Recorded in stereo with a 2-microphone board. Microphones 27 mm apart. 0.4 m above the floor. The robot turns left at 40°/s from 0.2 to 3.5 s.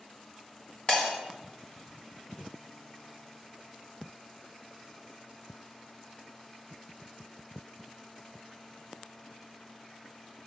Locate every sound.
0.9 s breaking glass: 35° left (ahead or behind), 1.9 m; by 1.1 s 45° left (ahead or behind), 1.9 m